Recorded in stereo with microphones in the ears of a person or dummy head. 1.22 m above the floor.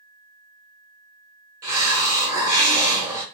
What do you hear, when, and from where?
1.6 s a hiss: 10° right (ahead or behind), 0.9 m